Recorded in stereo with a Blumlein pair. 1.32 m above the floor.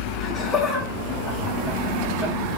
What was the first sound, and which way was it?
Laughter, 20° left.